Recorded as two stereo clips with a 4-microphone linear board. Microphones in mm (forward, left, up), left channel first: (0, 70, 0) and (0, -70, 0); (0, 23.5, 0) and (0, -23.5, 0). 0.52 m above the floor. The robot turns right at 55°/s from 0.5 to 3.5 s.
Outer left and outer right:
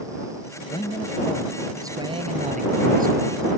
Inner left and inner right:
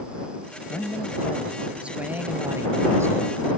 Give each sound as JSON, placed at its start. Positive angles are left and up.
{"t": 0.7, "sound": "a man speaking", "azimuth_deg": 140}